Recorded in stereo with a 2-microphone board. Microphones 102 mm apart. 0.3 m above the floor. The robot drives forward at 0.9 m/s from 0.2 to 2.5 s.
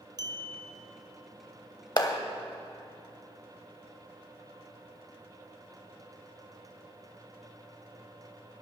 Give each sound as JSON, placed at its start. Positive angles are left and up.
{"t": 0.2, "sound": "a clink", "side_deg": -45, "distance_m": 1.2}
{"t": 2.0, "sound": "a clap", "side_deg": 40, "distance_m": 0.9}